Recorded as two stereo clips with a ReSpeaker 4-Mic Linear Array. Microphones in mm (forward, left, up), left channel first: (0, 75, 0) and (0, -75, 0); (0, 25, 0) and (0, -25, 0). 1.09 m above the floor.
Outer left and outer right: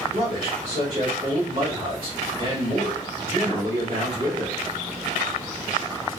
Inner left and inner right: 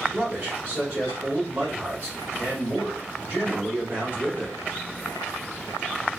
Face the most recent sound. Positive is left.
turn(degrees=-45)  # may be behind; listen again after turning